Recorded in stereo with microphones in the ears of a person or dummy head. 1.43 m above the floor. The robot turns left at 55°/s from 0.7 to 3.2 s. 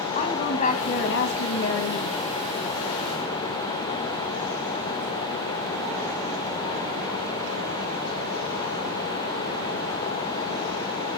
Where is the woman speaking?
140° left, 2 m; by 2.2 s 60° left, 2 m.